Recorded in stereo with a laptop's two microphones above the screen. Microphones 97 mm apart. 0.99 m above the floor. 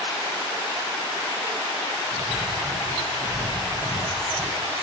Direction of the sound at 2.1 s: 45° right (ahead or behind).